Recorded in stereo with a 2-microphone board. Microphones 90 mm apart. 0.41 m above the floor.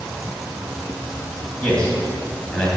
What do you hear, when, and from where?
1.6 s a man speaking: 10° left (ahead or behind), 2.5 m